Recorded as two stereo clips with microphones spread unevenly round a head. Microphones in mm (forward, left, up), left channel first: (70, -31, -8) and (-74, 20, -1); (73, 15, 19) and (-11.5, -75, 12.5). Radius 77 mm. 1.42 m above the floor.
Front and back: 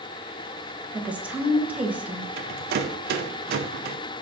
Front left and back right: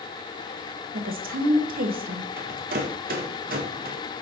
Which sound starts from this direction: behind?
A rattle, at 2.4 s.